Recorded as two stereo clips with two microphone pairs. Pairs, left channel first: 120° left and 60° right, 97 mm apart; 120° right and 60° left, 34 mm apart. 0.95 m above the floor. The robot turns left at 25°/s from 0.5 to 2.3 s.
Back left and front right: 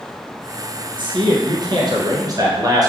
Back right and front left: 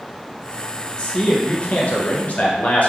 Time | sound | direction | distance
1.0 | a man speaking | 65° right | 0.6 m